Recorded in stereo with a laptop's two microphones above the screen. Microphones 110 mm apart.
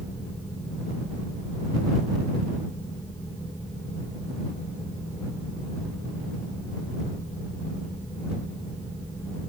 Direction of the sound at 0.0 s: 20° left (ahead or behind).